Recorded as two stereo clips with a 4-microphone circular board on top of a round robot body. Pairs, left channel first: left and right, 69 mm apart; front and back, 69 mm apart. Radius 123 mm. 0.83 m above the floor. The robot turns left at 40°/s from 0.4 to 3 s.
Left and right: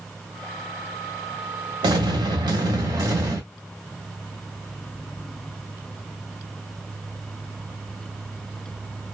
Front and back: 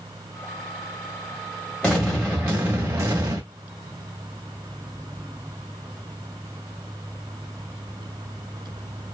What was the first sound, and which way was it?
An explosion, 80° right.